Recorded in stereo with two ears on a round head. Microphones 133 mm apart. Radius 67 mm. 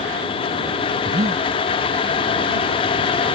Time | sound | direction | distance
1.1 | breathing | 25° right (ahead or behind) | ?